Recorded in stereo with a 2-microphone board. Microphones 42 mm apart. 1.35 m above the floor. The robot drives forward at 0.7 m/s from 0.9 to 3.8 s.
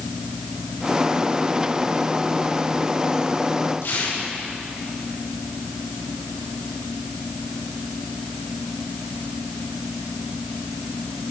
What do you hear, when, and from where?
3.8 s tearing paper: 85° left, 4 m